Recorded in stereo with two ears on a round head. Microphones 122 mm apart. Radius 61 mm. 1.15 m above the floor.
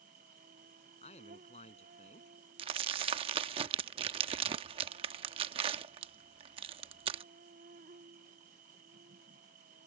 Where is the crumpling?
40° right (ahead or behind).